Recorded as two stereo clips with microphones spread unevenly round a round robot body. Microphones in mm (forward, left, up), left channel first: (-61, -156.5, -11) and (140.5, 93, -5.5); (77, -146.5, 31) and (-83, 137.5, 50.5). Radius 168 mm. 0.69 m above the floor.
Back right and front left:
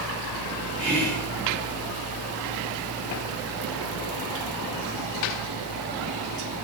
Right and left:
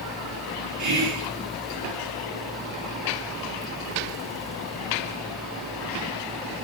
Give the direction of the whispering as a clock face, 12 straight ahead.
8 o'clock.